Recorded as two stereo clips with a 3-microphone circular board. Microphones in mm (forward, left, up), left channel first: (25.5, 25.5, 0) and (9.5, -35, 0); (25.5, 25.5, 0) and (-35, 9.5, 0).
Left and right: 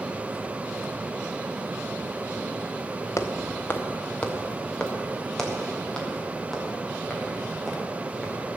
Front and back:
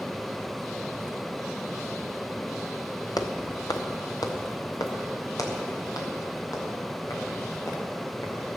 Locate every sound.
3.2 s footsteps: 30° left, 1.5 m; by 8.6 s 15° right, 7 m